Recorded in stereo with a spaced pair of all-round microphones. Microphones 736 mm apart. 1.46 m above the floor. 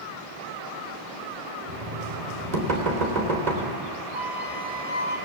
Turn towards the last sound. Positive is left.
turn(degrees=-75)  # may be behind; listen again after turning